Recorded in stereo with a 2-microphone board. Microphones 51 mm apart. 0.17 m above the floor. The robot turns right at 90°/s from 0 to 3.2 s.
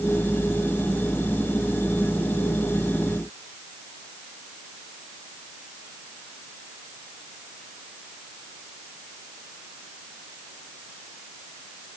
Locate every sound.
Only background noise.